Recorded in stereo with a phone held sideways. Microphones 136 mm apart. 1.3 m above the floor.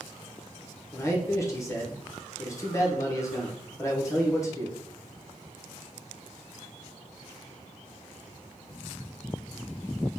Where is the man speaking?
20° left (ahead or behind), 0.8 m.